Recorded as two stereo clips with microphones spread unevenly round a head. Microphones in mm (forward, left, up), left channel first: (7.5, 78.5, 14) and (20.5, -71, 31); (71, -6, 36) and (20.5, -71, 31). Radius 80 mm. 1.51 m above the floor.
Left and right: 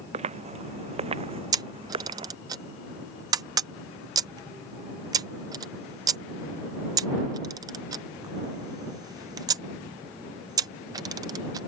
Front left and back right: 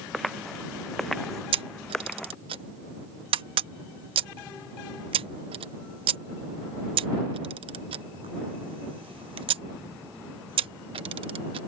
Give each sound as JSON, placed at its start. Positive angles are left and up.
{"t": 0.1, "sound": "footsteps", "azimuth_deg": -40}
{"t": 1.5, "sound": "a camera shutter", "azimuth_deg": -155}